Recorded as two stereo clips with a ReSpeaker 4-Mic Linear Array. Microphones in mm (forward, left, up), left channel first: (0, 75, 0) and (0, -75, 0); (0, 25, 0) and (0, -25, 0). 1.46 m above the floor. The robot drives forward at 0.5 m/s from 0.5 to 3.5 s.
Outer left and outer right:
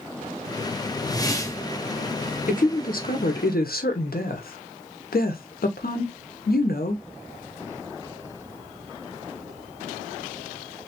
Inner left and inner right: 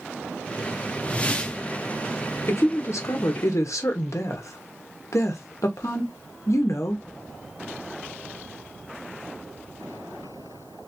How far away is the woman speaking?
About 1.1 m.